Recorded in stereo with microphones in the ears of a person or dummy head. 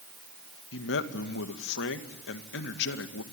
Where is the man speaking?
80° left, 2.0 m.